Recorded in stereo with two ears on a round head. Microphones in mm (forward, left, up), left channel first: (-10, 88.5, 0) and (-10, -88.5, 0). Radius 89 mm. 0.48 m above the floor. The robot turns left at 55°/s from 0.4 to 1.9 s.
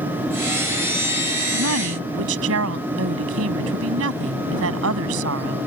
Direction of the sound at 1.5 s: 70° right (ahead or behind).